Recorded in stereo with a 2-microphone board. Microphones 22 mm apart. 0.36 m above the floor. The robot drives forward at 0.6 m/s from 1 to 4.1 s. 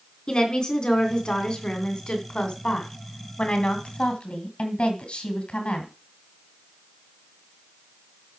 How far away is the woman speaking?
About 3 m.